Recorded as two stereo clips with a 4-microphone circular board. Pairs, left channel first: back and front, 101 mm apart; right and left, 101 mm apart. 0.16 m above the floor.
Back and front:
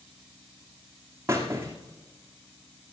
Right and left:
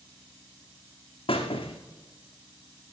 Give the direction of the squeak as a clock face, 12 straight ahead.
2 o'clock.